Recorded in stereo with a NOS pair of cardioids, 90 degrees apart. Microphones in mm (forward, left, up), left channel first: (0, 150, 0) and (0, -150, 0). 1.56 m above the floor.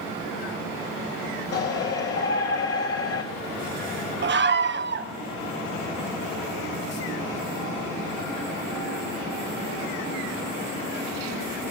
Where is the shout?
50° left, 3 m.